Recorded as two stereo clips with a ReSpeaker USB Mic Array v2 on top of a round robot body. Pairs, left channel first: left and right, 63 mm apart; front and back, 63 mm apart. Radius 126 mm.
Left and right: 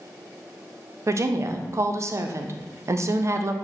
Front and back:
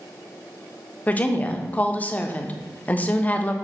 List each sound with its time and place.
1.1 s a woman speaking: 60° right, 0.6 m